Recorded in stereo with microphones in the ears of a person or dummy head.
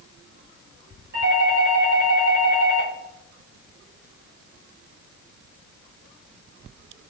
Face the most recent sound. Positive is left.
turn(degrees=-55)  # may be behind; listen again after turning